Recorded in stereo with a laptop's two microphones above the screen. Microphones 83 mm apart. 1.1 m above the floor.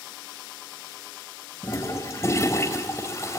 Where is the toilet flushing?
30° left (ahead or behind), 3.5 m.